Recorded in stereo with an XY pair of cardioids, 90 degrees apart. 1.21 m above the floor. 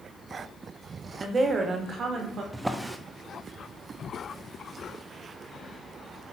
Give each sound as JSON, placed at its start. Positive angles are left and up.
{"t": 1.2, "sound": "a woman speaking", "azimuth_deg": -40, "distance_m": 2.5}
{"t": 2.5, "sound": "a drawer", "azimuth_deg": -15, "distance_m": 1.1}